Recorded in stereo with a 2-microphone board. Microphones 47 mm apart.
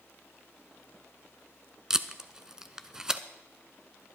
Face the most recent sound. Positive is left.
turn(degrees=-15)  # may be behind; listen again after turning